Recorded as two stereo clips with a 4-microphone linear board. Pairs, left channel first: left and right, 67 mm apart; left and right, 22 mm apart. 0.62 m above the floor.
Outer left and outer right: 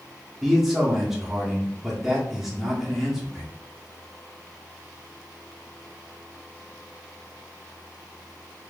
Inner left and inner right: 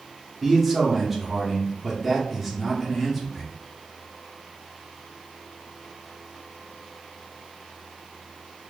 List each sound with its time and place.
0.4 s a man speaking: 5° right (ahead or behind), 1.0 m